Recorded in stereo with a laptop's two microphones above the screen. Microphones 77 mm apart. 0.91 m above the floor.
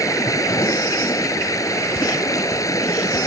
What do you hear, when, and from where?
0.0 s running water: 45° left (ahead or behind)